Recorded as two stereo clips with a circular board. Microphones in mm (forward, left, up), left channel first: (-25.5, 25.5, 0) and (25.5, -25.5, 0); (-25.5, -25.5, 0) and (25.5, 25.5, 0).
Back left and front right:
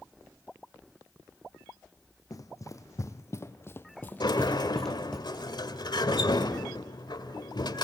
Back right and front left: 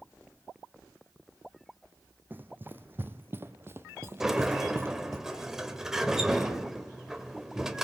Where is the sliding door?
130° left, 1.9 m.